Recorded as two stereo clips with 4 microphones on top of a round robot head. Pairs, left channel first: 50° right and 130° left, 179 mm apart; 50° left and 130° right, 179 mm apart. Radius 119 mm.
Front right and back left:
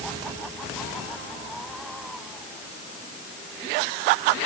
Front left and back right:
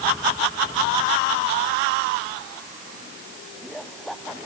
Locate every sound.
Only background noise.